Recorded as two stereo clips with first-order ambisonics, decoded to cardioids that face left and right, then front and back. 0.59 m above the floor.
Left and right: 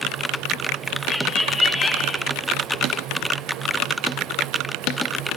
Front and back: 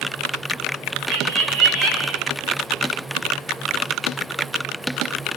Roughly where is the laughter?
Behind.